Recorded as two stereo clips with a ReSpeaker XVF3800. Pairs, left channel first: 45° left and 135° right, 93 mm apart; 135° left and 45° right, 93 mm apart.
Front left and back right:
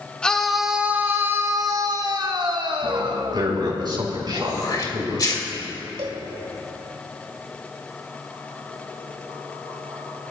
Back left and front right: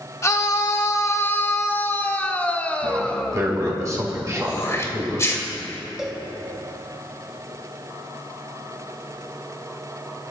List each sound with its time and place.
0.2 s a scream: 120° left, 0.9 m; by 3.7 s 145° right, 2 m
2.8 s a man speaking: 95° right, 5 m
4.3 s throat clearing: 80° left, 2.5 m
6.0 s a cowbell: 130° right, 1.5 m